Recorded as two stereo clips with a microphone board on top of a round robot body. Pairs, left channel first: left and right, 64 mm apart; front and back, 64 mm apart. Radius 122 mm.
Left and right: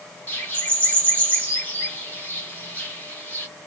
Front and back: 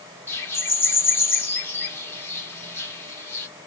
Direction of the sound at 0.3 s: 35° left.